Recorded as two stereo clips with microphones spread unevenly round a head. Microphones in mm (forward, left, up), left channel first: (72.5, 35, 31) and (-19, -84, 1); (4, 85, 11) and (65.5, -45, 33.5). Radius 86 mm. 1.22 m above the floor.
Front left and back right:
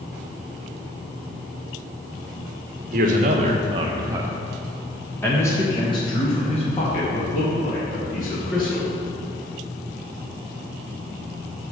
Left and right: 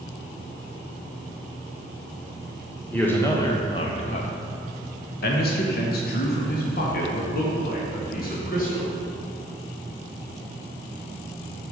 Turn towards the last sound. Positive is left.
turn(degrees=95)